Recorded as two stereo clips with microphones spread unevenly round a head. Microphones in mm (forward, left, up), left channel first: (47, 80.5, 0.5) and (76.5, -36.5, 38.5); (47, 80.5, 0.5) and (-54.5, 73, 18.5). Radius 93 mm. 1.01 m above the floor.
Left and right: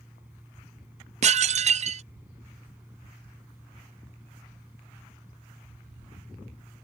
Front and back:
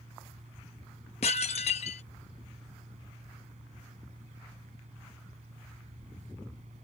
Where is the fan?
155° right.